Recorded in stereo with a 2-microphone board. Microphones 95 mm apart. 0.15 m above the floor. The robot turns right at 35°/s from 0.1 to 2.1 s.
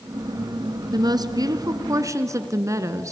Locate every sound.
0.9 s a woman speaking: 95° right, 1.5 m; by 3.1 s 55° right, 1.5 m